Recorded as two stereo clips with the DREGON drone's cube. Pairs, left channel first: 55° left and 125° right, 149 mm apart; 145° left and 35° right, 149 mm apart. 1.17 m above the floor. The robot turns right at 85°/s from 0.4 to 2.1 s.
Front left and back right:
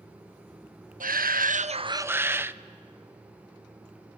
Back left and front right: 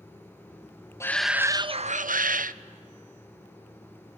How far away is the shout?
About 0.6 m.